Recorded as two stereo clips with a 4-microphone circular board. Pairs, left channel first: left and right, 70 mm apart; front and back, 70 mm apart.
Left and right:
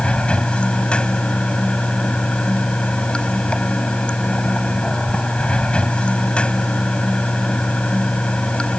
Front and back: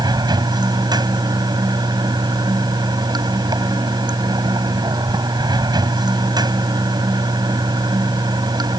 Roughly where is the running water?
Behind.